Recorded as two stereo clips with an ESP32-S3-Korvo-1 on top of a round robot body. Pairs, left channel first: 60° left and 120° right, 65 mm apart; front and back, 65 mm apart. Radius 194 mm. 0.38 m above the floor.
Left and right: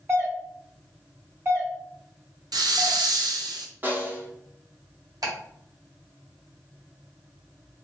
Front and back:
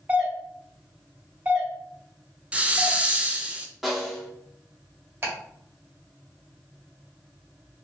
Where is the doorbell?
130° right, 1.8 m.